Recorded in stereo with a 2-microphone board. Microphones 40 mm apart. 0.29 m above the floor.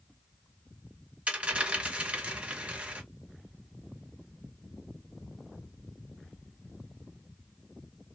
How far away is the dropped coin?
About 1.0 m.